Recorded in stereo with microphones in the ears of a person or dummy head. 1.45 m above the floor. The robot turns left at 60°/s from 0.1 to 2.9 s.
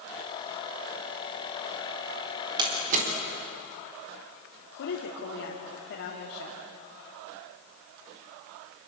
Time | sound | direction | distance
2.6 | a door slam | 25° right (ahead or behind) | 3.5 m
4.8 | a woman speaking | 70° left (ahead or behind) | 3 m